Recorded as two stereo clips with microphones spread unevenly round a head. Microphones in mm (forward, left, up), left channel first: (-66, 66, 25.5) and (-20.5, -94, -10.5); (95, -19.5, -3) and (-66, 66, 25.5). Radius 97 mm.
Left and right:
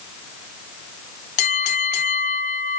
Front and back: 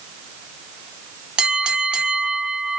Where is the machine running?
I don't hear a machine running.